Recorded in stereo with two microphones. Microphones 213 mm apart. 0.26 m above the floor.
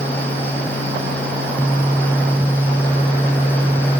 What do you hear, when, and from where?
Only background noise.